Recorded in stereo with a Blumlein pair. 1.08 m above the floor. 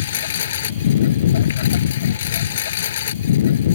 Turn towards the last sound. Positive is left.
turn(degrees=65)